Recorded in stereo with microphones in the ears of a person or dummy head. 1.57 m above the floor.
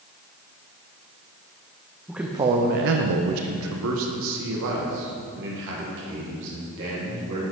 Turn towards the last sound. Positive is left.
turn(degrees=-60)  # may be behind; listen again after turning